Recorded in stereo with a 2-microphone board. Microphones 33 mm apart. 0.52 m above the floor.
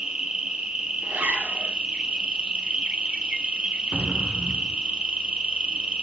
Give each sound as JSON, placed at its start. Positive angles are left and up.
{"t": 0.0, "sound": "an insect", "side_deg": -35, "distance_m": 1.6}
{"t": 1.0, "sound": "a zipper", "side_deg": -90, "distance_m": 5.0}
{"t": 3.9, "sound": "an explosion", "side_deg": -45, "distance_m": 0.8}